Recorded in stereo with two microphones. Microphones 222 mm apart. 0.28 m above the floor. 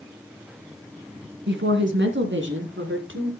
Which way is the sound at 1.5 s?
55° right (ahead or behind).